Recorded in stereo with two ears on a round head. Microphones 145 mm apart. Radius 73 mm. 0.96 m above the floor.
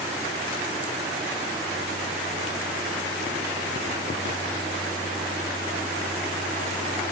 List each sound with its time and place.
Only background noise.